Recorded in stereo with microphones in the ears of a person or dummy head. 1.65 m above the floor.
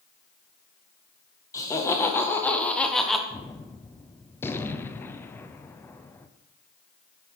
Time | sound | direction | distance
1.5 | laughter | 20° left (ahead or behind) | 2.0 m
3.3 | a gunshot | 15° left (ahead or behind) | 0.7 m